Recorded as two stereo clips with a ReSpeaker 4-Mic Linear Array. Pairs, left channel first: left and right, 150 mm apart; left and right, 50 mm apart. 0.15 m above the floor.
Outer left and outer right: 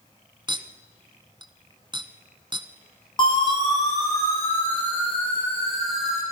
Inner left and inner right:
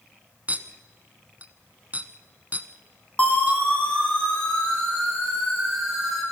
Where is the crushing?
No crushing in this recording.